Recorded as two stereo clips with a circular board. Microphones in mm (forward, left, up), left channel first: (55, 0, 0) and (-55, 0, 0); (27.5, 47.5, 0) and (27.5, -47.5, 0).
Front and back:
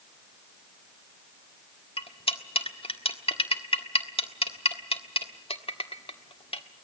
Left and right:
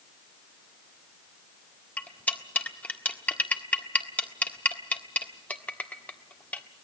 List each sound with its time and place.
2.0 s cutlery clinking: 20° left, 1.5 m